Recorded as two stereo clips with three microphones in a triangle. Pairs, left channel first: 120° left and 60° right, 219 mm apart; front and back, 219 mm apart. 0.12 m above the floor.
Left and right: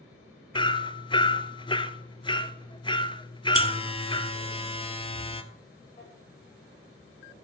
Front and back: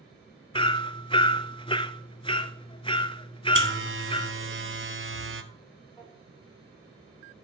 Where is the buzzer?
175° right, 1.0 m.